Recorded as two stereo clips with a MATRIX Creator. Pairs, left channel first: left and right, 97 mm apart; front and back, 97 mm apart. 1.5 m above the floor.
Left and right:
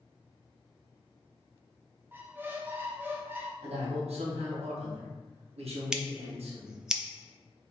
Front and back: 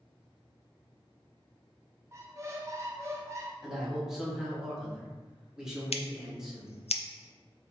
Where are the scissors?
5° right, 0.5 m.